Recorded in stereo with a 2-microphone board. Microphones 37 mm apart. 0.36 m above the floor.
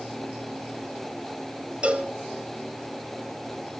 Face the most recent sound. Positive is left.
turn(degrees=-35)  # may be behind; listen again after turning